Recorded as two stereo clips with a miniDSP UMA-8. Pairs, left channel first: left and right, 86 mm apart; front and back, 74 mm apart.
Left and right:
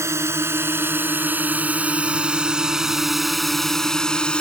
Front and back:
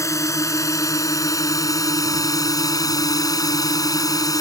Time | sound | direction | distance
0.0 | a drone | 40° right | ?